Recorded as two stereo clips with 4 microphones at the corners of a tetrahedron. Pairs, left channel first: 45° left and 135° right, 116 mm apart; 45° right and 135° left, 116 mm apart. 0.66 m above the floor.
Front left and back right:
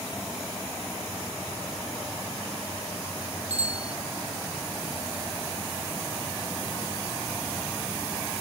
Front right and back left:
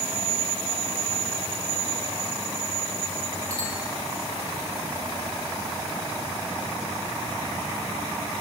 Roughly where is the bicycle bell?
Behind right.